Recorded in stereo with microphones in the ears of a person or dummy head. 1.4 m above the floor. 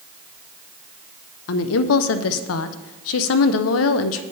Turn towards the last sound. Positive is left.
turn(degrees=80)